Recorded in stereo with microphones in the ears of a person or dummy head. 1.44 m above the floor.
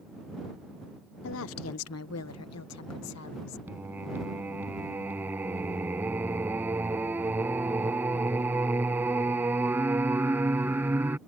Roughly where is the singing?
Centre.